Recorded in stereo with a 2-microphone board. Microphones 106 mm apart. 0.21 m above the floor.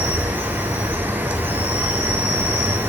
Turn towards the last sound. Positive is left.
turn(degrees=-20)  # may be behind; listen again after turning